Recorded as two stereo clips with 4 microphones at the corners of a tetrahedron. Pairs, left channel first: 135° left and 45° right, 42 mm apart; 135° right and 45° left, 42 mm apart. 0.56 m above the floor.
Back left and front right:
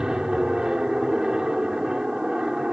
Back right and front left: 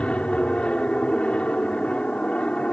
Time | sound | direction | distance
0.0 | an aircraft | 100° right | ?